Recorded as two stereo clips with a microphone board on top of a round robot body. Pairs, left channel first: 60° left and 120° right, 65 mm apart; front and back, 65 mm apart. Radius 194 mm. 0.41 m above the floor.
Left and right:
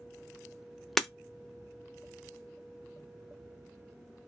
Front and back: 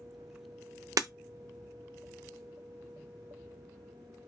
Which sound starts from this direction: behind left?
Breaking glass, at 1.0 s.